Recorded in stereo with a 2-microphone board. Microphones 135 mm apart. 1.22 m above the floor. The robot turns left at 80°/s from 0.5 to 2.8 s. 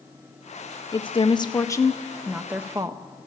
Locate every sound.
0.9 s a woman speaking: 105° left, 0.6 m; by 3.0 s 45° right, 0.6 m